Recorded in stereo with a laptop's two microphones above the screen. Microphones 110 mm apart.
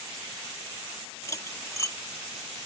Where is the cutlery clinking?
25° left (ahead or behind).